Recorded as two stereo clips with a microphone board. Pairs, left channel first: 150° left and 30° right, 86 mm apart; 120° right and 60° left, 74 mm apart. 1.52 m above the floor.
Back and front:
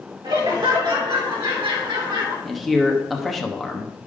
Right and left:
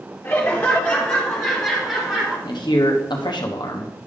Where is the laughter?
60° right, 3.5 m; by 2.4 s 20° right, 4 m.